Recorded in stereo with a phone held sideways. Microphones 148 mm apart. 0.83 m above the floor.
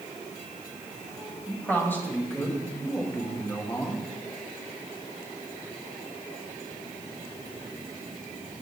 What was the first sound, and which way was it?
A man speaking, 15° left (ahead or behind).